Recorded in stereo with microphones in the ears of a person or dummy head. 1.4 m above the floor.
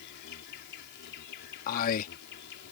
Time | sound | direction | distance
0.0 | an insect | 60° left (ahead or behind) | ?
1.7 | a man speaking | 45° left (ahead or behind) | ?